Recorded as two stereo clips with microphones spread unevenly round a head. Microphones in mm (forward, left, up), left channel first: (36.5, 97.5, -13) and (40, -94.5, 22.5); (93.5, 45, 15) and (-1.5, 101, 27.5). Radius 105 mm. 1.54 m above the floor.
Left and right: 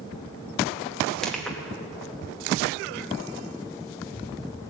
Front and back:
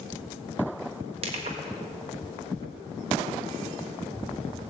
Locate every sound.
1.2 s crushing: 175° right, 1.2 m